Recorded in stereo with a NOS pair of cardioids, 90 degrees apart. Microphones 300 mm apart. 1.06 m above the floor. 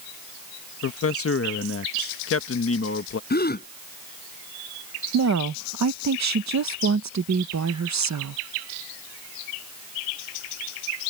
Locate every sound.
0.8 s a man speaking: 50° left
3.3 s a gasp: 30° left
5.1 s a woman speaking: 65° right